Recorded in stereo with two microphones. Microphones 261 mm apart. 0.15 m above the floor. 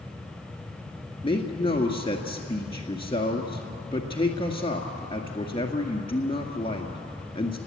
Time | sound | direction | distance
1.2 | a man speaking | 20° left (ahead or behind) | 1.9 m